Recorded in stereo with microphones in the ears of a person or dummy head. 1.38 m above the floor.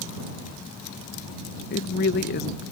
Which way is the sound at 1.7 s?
60° left (ahead or behind).